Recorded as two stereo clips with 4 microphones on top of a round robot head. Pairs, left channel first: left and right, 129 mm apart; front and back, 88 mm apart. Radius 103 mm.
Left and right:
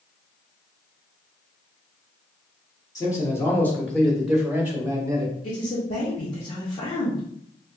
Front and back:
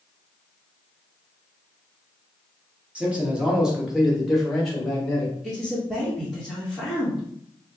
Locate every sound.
3.0 s a man speaking: 120° left, 1.3 m; by 5.3 s 60° right, 1.2 m
5.4 s a man speaking: 100° left, 1.5 m